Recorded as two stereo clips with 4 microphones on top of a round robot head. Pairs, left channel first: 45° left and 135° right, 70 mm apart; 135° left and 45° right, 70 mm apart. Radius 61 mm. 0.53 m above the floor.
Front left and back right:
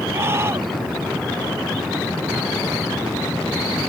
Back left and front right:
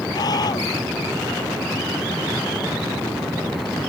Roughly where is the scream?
Behind.